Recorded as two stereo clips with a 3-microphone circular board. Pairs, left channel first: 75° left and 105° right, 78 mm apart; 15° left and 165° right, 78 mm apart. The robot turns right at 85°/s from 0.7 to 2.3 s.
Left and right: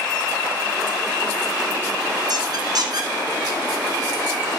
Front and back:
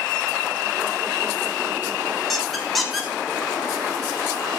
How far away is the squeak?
About 3 m.